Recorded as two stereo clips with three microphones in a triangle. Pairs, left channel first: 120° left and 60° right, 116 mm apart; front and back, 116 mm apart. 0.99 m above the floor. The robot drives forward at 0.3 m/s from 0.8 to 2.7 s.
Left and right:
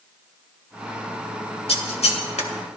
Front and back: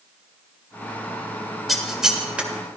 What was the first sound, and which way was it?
Scissors, 90° left.